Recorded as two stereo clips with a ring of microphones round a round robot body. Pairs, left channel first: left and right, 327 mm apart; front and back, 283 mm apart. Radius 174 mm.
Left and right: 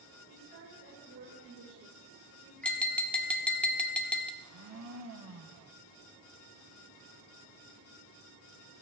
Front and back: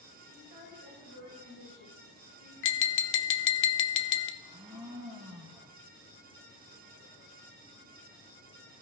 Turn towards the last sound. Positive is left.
turn(degrees=-105)